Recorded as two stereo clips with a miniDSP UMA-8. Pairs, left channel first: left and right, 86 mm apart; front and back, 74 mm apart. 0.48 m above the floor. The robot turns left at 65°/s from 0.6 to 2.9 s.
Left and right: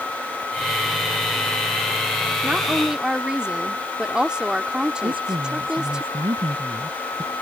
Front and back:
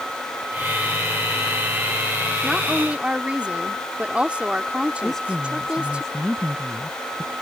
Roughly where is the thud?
No thud in this recording.